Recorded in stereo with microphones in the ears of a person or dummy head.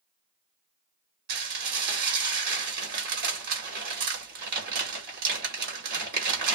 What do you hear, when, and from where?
1.3 s dishes clattering: 55° right (ahead or behind), 1.5 m